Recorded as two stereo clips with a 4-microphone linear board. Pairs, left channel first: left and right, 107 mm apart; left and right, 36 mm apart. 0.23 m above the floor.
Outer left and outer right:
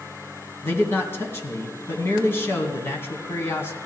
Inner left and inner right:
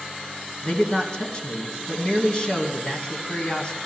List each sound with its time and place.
0.6 s a man speaking: 25° left (ahead or behind), 2.5 m